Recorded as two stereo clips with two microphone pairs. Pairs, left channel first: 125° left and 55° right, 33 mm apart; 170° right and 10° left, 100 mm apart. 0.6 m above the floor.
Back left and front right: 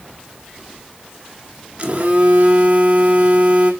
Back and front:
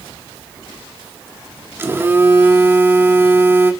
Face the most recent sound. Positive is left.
turn(degrees=-45)